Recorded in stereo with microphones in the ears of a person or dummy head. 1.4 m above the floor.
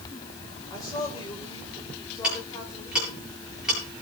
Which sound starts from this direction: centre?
Ticking, at 2.2 s.